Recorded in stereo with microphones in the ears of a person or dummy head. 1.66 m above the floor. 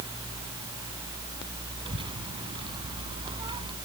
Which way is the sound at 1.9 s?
25° right (ahead or behind).